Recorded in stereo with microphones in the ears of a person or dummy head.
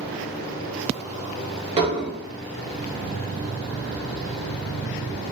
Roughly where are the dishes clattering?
Right.